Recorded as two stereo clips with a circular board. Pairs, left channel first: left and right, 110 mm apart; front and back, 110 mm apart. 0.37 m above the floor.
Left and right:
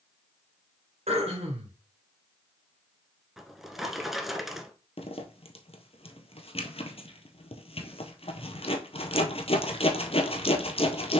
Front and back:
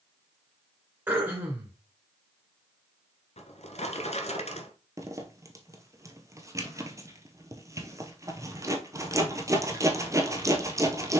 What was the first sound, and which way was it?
Throat clearing, 110° right.